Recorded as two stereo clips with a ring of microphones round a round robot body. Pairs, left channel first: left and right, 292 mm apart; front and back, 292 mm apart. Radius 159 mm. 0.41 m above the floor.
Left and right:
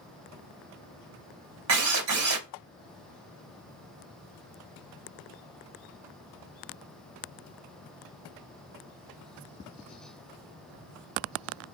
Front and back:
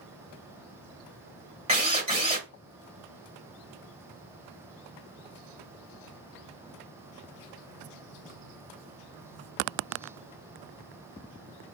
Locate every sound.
1.7 s a drill: 115° right, 1.6 m